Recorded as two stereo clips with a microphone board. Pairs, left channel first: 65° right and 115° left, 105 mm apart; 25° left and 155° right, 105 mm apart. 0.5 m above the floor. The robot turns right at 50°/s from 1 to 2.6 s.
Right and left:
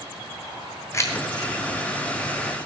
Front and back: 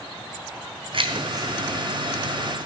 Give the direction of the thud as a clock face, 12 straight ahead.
I don't hear a thud.